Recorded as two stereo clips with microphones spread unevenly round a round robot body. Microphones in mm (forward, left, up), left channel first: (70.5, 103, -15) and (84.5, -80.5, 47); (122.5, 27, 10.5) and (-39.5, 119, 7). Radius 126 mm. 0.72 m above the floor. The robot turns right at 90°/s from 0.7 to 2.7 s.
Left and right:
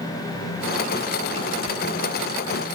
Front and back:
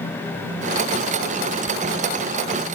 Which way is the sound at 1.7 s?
85° left.